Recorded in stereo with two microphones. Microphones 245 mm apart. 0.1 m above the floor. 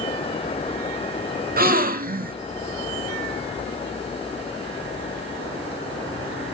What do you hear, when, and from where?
1.6 s a gasp: 35° right (ahead or behind), 0.6 m